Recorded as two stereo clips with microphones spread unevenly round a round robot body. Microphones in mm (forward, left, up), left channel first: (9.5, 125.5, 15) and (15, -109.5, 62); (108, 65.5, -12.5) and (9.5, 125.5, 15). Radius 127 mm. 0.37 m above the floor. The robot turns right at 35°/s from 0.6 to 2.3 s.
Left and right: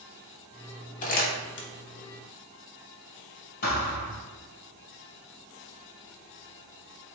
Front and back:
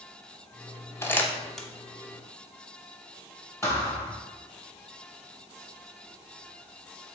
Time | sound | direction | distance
1.0 | crumpling | 35° left | 0.8 m
3.6 | a thud | 40° left | 1.4 m